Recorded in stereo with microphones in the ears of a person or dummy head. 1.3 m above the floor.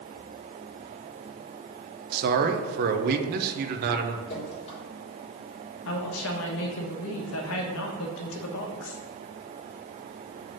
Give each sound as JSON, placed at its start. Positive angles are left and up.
{"t": 2.1, "sound": "a man speaking", "side_deg": -55, "distance_m": 1.0}
{"t": 4.3, "sound": "dripping", "side_deg": 40, "distance_m": 3.5}
{"t": 5.8, "sound": "a woman speaking", "side_deg": 70, "distance_m": 1.3}